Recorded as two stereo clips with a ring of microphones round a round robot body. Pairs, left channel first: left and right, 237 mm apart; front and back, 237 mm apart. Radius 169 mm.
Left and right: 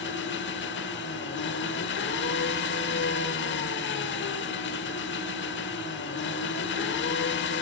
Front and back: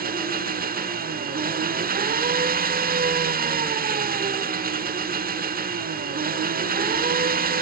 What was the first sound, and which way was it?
An engine running, 130° left.